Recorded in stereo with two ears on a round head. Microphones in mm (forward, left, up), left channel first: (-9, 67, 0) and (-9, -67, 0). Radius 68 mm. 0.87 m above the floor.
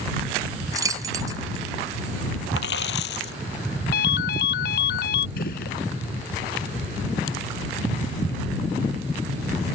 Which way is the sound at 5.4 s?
70° left (ahead or behind).